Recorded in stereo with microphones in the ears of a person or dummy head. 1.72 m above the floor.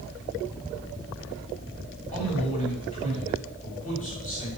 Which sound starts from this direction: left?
A man speaking, at 2.1 s.